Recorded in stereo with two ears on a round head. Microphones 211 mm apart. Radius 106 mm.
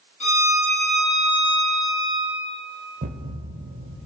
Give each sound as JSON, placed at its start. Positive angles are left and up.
{"t": 0.2, "sound": "a violin", "side_deg": 30, "distance_m": 4.5}
{"t": 3.0, "sound": "a thud", "side_deg": -35, "distance_m": 1.0}